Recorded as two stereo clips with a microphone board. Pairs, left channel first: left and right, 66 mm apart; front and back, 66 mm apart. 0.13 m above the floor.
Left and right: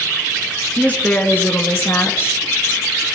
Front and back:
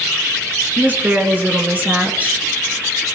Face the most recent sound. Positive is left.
turn(degrees=120)